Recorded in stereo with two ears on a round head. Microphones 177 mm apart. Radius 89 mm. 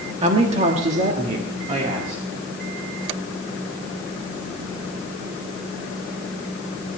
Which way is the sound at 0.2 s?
30° right (ahead or behind).